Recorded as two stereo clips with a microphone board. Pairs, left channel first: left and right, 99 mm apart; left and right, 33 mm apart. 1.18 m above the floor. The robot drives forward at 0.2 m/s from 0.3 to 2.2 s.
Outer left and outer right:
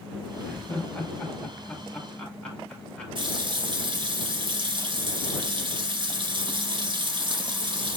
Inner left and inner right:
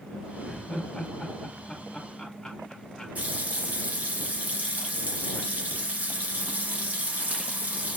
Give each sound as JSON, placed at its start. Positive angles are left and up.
{"t": 0.4, "sound": "laughter", "side_deg": 15, "distance_m": 1.2}
{"t": 3.1, "sound": "a running tap", "side_deg": -55, "distance_m": 0.7}